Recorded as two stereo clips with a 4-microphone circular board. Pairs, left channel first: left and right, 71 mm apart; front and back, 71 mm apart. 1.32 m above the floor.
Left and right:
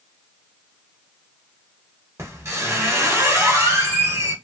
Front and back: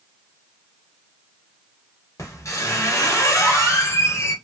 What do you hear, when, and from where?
2.2 s a squeak: 40° right, 1.0 m